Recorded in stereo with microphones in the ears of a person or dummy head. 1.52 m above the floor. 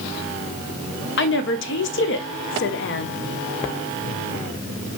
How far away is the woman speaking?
About 0.7 m.